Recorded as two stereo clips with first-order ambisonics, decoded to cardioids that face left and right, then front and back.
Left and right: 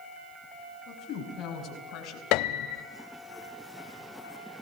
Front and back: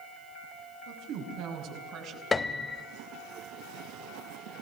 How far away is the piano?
About 0.7 m.